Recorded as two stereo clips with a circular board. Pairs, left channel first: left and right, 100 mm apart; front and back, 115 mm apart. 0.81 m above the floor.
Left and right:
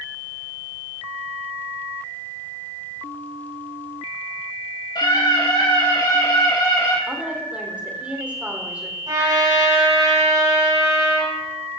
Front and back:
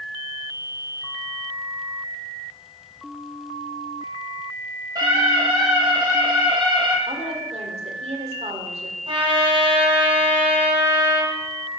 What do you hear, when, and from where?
5.0 s a scream: 130° left, 5 m; by 7.0 s 135° left, 4 m
7.1 s a woman speaking: 165° right, 2.5 m
9.1 s a trumpet: 135° right, 5 m